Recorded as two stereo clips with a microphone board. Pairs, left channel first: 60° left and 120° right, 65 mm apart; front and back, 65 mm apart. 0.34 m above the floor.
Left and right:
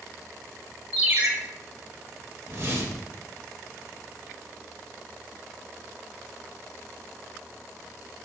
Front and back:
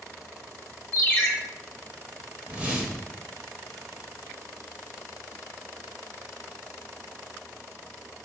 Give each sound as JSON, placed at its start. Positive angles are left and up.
{"t": 0.9, "sound": "a ringtone", "azimuth_deg": -65, "distance_m": 1.0}
{"t": 2.4, "sound": "a whoosh", "azimuth_deg": -125, "distance_m": 0.8}